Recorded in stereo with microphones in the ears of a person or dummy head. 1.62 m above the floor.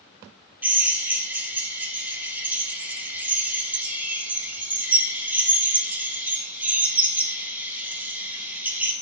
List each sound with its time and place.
0.6 s a drill: 10° right (ahead or behind), 1.9 m